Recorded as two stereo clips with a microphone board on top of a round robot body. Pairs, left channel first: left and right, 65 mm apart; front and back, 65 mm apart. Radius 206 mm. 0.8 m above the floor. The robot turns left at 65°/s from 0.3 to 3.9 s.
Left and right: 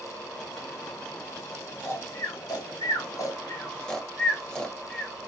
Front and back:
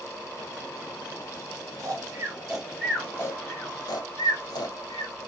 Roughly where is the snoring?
Behind left.